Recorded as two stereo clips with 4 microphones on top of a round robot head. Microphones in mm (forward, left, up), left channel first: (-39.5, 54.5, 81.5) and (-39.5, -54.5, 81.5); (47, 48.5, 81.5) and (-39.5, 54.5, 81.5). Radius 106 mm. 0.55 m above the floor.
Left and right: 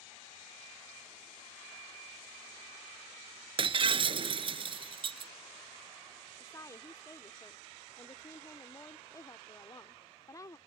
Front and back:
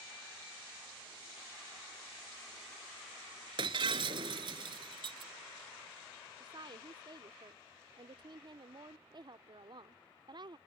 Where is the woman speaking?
150° left.